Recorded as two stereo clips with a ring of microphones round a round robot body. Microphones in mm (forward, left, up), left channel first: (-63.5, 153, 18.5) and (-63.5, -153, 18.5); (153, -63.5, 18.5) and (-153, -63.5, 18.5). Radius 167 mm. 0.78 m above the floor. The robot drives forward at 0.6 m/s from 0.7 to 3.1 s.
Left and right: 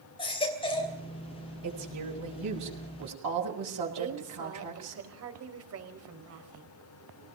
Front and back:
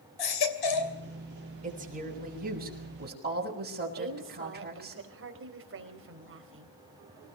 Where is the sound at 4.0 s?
130° right, 4 m.